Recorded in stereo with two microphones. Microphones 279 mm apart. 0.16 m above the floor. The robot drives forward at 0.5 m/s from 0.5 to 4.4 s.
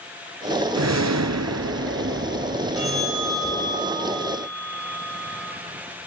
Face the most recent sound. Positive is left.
turn(degrees=55)  # may be behind; listen again after turning